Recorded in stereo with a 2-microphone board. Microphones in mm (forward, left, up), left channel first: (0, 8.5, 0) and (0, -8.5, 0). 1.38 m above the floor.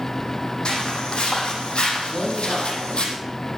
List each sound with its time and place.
0.7 s footsteps: 70° left (ahead or behind), 4.5 m
2.1 s a man speaking: 40° left (ahead or behind), 8.5 m